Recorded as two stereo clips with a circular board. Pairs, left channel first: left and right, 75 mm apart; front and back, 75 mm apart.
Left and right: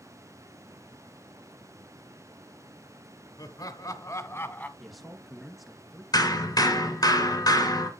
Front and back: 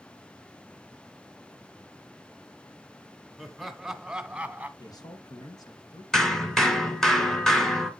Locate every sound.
3.4 s laughter: 85° left, 1.9 m; by 4.7 s 135° left, 1.2 m
4.8 s a man speaking: straight ahead, 2.5 m
6.1 s hammering: 80° left, 2.5 m